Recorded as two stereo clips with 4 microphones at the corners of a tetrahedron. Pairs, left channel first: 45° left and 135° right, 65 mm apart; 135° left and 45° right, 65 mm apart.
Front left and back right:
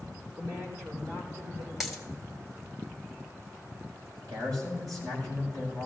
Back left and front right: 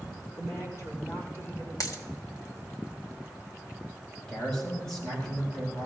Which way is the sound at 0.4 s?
Straight behind.